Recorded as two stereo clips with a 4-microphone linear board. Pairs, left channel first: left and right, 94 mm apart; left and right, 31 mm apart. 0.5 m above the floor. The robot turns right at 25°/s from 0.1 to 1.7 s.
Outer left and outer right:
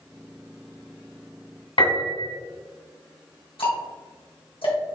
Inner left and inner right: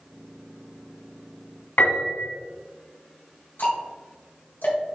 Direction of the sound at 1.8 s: 75° left (ahead or behind).